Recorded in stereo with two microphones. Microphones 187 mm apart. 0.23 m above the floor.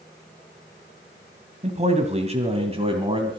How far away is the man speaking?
About 1.7 m.